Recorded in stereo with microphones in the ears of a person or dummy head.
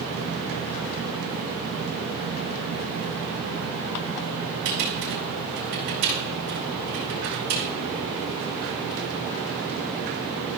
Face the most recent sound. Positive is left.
turn(degrees=-60)  # may be behind; listen again after turning